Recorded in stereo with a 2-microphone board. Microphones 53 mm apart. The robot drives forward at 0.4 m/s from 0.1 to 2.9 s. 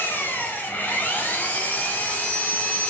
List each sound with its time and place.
0.0 s an engine running: 40° left (ahead or behind), 3 m; by 2.9 s 30° left (ahead or behind), 4 m